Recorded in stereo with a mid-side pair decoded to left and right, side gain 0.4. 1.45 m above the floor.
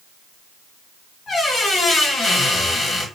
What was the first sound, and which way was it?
A squeak, 60° left.